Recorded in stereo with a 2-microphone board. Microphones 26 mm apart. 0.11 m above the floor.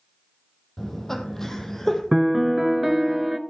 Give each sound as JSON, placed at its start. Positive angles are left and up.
{"t": 0.8, "sound": "laughter", "side_deg": 15, "distance_m": 3.5}
{"t": 2.1, "sound": "a piano", "side_deg": -10, "distance_m": 0.7}